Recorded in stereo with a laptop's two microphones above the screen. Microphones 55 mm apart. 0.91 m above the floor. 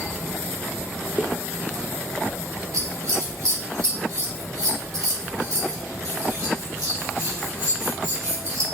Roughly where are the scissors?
Right.